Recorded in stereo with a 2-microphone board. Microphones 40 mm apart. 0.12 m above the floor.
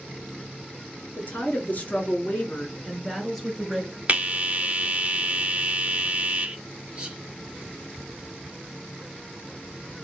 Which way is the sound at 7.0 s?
25° right (ahead or behind).